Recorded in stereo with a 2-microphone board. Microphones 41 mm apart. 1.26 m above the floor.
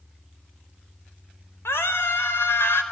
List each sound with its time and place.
1.6 s a scream: 80° left, 4 m